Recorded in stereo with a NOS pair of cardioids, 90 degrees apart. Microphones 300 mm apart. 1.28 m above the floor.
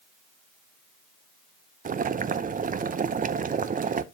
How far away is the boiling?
About 0.6 m.